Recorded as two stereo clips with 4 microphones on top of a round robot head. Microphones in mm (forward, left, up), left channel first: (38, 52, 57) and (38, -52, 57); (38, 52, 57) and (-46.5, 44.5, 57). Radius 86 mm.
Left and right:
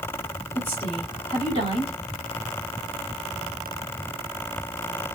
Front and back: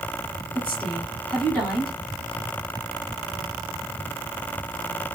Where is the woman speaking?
85° left, 2.5 m.